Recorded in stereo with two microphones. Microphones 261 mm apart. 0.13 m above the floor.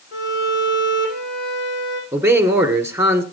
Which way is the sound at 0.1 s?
50° left (ahead or behind).